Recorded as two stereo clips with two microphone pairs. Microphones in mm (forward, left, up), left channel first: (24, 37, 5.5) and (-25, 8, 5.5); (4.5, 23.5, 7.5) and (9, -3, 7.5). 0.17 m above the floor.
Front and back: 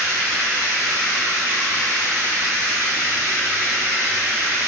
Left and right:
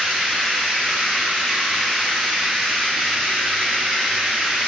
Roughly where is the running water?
Right.